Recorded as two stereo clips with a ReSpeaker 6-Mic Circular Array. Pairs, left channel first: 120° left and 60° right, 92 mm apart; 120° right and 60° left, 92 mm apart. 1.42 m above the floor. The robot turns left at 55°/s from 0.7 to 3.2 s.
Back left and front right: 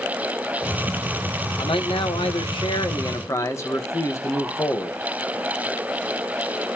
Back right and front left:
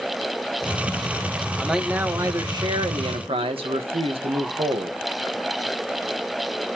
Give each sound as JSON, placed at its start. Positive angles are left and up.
{"t": 1.6, "sound": "a man speaking", "azimuth_deg": 155, "distance_m": 1.8}